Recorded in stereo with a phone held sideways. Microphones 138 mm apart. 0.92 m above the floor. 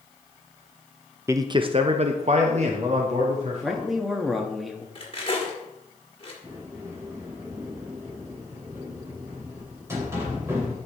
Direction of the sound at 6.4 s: 20° right (ahead or behind).